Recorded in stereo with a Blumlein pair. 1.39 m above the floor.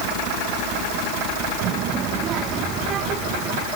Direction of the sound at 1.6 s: 35° right.